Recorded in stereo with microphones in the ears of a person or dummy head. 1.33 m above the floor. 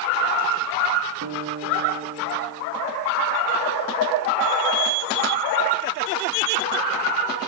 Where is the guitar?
65° right (ahead or behind), 2.5 m.